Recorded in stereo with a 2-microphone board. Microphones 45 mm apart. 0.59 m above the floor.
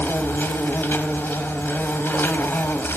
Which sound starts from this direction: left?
An insect, at 0.0 s.